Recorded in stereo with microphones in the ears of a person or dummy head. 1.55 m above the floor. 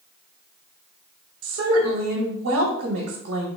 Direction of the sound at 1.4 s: 70° right (ahead or behind).